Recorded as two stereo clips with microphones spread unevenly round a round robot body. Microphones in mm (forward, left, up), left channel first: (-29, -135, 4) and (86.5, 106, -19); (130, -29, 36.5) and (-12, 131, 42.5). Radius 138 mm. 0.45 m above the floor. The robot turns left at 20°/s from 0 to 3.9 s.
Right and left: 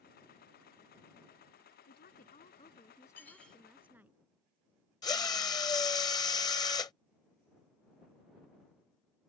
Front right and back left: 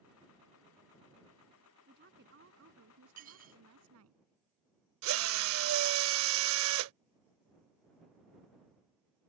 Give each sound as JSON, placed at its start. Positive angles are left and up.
{"t": 1.9, "sound": "a woman speaking", "azimuth_deg": -170}
{"t": 3.2, "sound": "dishes clattering", "azimuth_deg": 160}
{"t": 5.0, "sound": "a drill", "azimuth_deg": 165}